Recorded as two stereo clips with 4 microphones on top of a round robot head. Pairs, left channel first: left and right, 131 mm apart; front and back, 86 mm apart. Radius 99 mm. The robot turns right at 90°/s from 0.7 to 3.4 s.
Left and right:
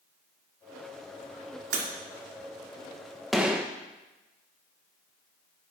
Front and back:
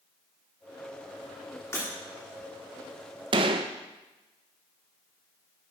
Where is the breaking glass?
70° right, 2.5 m; by 1.9 s 60° right, 2.5 m.